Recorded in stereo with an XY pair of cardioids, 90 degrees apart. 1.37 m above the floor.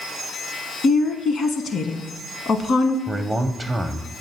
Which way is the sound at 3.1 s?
20° right.